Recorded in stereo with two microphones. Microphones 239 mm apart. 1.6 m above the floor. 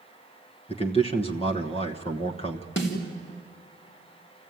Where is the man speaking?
25° left (ahead or behind), 1.2 m.